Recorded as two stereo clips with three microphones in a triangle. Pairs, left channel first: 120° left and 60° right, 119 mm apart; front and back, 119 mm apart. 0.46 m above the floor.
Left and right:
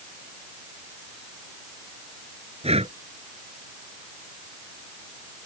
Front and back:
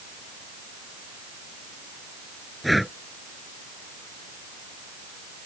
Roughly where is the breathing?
Right.